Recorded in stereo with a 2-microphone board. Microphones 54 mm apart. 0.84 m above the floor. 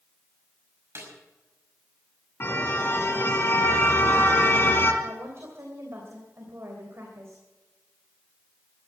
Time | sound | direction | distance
0.9 | a snare drum | 55° right (ahead or behind) | 5.5 m
2.4 | a car horn | 45° left (ahead or behind) | 3 m
5.0 | a woman speaking | 55° right (ahead or behind) | 3 m